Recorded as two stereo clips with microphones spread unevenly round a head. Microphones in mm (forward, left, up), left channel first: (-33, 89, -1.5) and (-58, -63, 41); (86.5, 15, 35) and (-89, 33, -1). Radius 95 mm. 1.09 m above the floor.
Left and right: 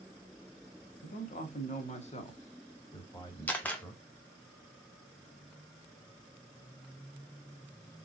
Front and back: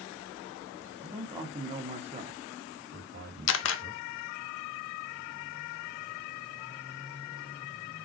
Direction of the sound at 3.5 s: 5° right.